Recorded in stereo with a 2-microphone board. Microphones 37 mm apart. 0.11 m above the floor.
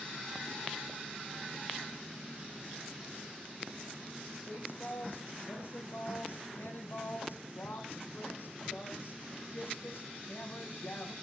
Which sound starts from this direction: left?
A woman speaking, at 4.5 s.